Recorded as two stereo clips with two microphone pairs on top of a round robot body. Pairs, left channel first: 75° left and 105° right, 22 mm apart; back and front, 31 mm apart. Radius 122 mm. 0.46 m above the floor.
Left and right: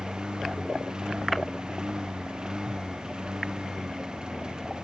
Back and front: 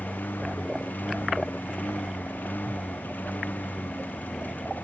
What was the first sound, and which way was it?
A lawn mower, 165° right.